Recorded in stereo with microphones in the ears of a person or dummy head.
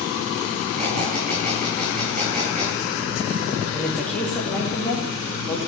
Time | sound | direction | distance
0.8 | a squeak | 40° right (ahead or behind) | 8 m
3.7 | a woman speaking | 5° left (ahead or behind) | 3 m